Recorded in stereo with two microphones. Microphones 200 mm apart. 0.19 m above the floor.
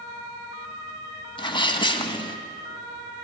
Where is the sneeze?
25° left (ahead or behind), 1.4 m.